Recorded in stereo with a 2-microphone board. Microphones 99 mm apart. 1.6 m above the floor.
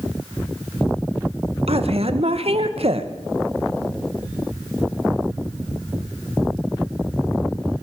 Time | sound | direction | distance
1.7 | a woman speaking | 80° right | 2 m